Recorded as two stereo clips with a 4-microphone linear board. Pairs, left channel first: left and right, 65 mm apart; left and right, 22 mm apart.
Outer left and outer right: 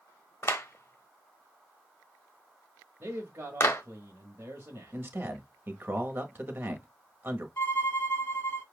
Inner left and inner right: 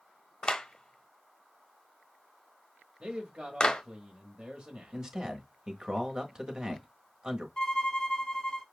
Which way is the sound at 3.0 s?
35° right (ahead or behind).